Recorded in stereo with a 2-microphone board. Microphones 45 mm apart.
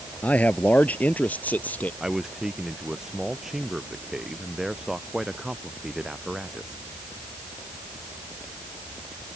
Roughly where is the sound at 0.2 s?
Left.